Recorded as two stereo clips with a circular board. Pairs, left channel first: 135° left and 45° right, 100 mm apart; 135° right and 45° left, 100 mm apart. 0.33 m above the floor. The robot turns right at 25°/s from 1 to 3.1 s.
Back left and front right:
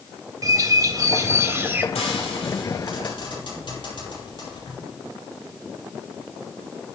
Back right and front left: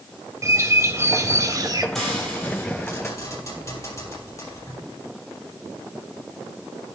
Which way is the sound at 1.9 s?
140° left.